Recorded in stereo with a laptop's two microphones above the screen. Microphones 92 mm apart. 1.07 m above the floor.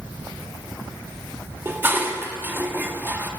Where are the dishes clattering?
25° right (ahead or behind), 1.2 m.